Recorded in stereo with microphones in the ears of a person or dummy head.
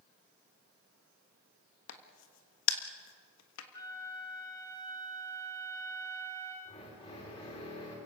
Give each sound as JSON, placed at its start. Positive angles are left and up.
{"t": 1.9, "sound": "a crack", "side_deg": 80, "distance_m": 1.4}
{"t": 3.7, "sound": "a flute", "side_deg": 30, "distance_m": 3.0}
{"t": 6.7, "sound": "a drill", "side_deg": 35, "distance_m": 4.5}